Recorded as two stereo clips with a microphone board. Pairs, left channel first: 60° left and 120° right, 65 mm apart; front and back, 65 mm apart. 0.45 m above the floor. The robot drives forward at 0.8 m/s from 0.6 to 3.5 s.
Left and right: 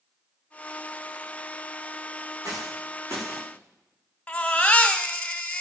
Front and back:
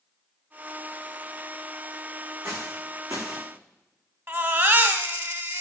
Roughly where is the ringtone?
No ringtone in this recording.